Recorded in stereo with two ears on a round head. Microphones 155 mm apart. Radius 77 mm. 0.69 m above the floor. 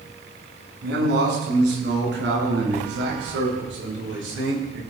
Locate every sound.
0.8 s a man speaking: 70° right (ahead or behind), 7 m; by 4.8 s 75° right (ahead or behind), 11.5 m